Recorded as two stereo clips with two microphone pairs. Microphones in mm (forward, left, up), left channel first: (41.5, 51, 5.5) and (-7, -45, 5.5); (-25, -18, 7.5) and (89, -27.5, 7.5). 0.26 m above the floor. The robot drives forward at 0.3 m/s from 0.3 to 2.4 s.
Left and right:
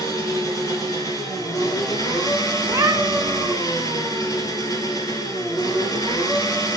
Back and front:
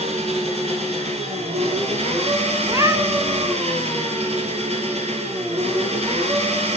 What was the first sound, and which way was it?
An engine running, 10° left.